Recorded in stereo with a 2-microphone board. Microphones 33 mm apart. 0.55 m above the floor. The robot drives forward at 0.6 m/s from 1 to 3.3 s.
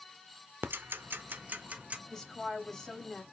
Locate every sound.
0.6 s ticking: 80° right, 0.5 m; by 2.0 s 40° right (ahead or behind), 0.8 m
2.1 s a woman speaking: 15° left (ahead or behind), 3 m; by 3.2 s 10° left (ahead or behind), 3.5 m